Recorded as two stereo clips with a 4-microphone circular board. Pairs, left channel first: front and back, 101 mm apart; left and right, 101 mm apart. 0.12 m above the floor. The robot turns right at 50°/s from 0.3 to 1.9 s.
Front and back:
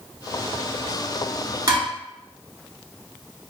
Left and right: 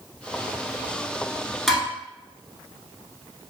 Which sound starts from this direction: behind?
Dishes clattering, at 1.7 s.